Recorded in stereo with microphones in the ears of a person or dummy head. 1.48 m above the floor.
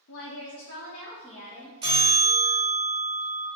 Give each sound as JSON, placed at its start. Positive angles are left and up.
{"t": 0.1, "sound": "a woman speaking", "side_deg": 60, "distance_m": 0.8}
{"t": 1.8, "sound": "a bell", "side_deg": -25, "distance_m": 1.3}